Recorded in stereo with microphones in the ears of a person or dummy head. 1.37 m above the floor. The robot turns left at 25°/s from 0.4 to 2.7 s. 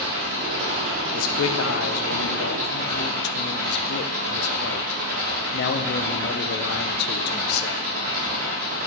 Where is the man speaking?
100° left, 0.9 m; by 7.9 s 60° left, 0.9 m.